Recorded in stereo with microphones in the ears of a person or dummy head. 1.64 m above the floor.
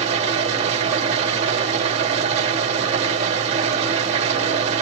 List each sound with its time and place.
0.0 s an engine running: 40° right (ahead or behind), 1.8 m